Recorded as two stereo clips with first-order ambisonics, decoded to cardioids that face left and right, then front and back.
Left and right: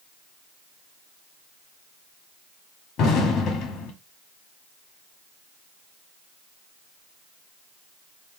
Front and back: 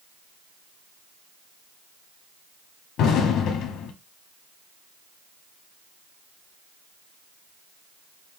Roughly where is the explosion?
Ahead left.